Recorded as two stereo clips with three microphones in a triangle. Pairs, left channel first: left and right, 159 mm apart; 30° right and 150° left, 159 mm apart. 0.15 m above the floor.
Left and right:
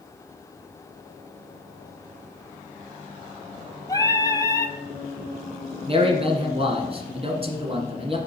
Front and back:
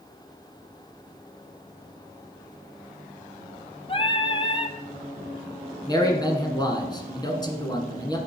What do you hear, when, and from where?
3.9 s singing: 20° left, 0.6 m
5.9 s a man speaking: 75° right, 1.6 m